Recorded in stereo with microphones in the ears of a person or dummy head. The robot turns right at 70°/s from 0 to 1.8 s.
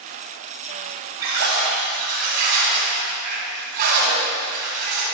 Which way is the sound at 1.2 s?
105° right.